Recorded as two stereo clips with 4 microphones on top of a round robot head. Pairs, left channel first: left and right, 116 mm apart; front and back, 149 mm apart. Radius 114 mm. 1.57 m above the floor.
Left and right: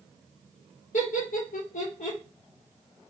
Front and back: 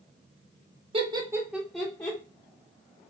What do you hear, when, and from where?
0.9 s laughter: 130° left, 1.2 m; by 2.2 s 65° left, 1.5 m